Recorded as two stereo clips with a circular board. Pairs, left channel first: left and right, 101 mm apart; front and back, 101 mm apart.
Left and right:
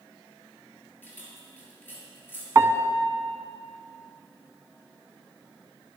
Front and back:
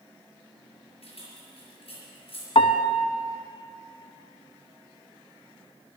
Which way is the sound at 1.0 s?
20° left.